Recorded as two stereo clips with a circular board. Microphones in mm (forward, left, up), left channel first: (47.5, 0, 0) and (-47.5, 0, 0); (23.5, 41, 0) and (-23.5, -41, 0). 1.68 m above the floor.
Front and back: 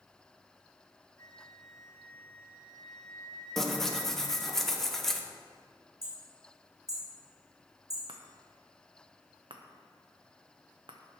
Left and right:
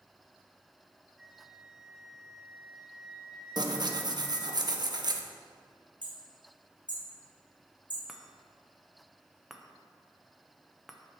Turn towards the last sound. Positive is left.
turn(degrees=155)